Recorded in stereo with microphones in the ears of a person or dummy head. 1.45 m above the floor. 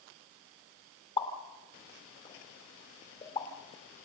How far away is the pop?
About 3 m.